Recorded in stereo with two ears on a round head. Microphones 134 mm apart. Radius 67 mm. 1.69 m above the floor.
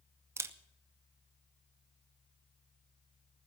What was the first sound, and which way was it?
A camera shutter, 20° right (ahead or behind).